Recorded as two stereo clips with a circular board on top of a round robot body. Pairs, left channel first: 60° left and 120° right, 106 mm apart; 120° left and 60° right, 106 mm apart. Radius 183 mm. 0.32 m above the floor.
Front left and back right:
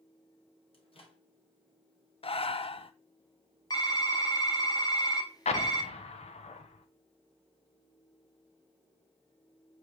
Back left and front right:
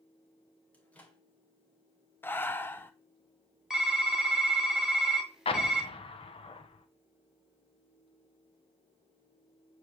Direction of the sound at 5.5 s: 80° left.